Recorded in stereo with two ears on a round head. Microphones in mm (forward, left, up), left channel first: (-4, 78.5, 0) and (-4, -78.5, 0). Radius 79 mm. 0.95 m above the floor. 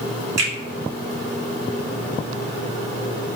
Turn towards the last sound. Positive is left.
turn(degrees=-20)  # may be behind; listen again after turning